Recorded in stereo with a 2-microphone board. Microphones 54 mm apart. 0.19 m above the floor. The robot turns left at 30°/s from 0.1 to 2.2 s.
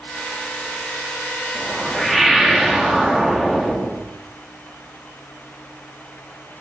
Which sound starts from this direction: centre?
A whoosh, at 1.6 s.